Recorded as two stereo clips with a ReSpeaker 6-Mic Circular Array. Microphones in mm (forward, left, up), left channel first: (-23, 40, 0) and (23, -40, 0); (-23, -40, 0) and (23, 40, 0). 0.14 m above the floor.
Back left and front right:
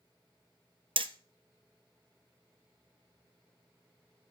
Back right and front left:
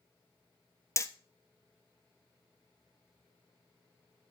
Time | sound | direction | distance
1.0 | hammering | 65° right | 0.8 m